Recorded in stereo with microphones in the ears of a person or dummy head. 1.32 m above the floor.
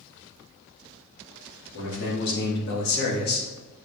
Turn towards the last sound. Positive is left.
turn(degrees=50)  # may be behind; listen again after turning